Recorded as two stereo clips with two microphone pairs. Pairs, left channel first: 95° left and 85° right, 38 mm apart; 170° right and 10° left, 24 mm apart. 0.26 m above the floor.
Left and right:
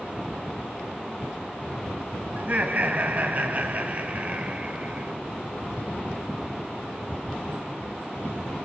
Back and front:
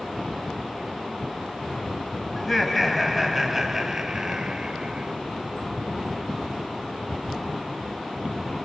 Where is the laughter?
90° right, 1.9 m; by 5.1 s 35° right, 2.5 m.